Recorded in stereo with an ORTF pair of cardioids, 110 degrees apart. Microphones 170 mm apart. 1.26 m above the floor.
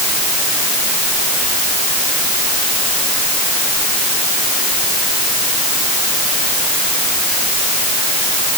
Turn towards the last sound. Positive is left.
No sound to turn to.